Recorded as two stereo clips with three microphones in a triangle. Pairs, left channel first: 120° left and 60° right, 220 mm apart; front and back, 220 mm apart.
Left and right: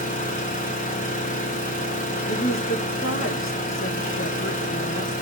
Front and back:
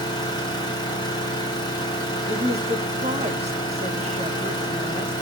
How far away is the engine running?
About 2.5 m.